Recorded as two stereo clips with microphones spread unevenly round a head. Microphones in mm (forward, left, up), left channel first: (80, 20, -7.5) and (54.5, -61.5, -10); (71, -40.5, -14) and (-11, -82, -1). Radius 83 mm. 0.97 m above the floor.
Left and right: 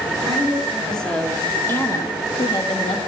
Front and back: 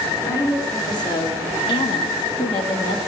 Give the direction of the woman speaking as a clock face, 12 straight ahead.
1 o'clock.